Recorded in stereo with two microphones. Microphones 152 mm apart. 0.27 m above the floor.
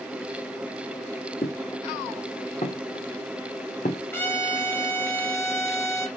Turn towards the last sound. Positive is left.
turn(degrees=15)  # may be behind; listen again after turning